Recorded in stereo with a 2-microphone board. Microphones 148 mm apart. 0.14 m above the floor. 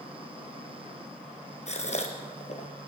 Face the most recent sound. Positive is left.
turn(degrees=50)  # may be behind; listen again after turning